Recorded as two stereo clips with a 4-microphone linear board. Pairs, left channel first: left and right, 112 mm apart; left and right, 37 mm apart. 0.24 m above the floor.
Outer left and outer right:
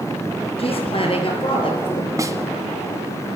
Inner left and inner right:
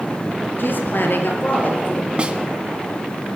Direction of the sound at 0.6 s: 60° left (ahead or behind).